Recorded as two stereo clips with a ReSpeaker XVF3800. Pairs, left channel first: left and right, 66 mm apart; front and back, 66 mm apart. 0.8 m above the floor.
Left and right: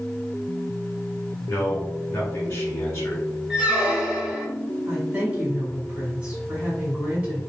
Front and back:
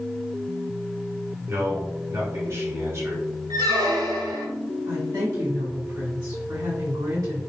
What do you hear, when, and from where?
1.5 s a man speaking: 145° left, 1.5 m
3.5 s a squeak: 160° right, 0.6 m
4.9 s a woman speaking: 160° right, 2.0 m